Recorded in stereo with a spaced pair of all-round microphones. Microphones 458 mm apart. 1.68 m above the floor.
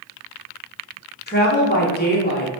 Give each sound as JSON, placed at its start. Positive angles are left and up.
{"t": 1.3, "sound": "a woman speaking", "side_deg": 20, "distance_m": 0.8}